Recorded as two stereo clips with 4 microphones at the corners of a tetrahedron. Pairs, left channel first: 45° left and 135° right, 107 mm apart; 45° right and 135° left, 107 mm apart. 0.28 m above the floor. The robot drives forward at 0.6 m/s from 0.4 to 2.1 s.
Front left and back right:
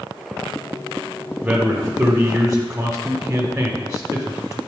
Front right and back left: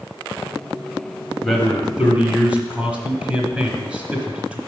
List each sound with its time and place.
1.4 s a man speaking: 120° right, 0.9 m; by 4.6 s 155° right, 1.0 m